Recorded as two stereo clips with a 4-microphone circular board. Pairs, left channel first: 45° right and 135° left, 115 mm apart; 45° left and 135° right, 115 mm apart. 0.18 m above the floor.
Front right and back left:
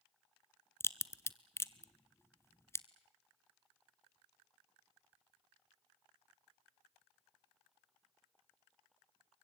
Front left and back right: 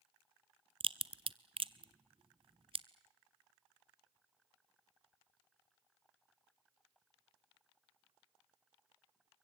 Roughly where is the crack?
Right.